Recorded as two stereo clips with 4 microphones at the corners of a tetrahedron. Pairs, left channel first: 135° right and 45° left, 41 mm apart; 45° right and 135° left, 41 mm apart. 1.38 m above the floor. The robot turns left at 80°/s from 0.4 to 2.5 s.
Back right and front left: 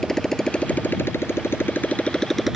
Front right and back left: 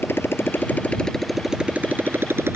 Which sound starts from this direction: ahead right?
A motorcycle, at 0.0 s.